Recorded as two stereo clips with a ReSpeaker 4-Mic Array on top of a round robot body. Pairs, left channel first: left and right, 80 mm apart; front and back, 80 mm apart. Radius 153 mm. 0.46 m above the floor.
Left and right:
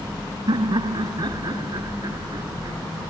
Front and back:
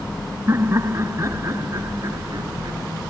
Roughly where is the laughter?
Behind right.